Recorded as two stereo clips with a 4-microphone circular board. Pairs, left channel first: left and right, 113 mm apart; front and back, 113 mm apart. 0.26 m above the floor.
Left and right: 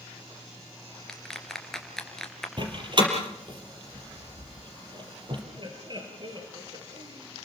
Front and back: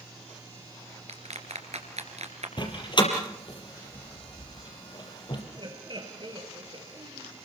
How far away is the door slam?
About 4 m.